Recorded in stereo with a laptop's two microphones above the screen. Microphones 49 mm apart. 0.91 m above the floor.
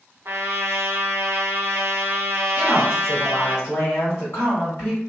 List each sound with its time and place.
0.2 s a trumpet: 60° right (ahead or behind), 0.8 m
2.6 s a woman speaking: 65° left (ahead or behind), 1.7 m